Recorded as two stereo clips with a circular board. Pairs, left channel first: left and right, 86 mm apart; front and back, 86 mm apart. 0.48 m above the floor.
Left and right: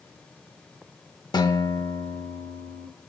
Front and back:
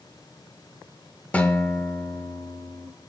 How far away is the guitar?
About 0.7 m.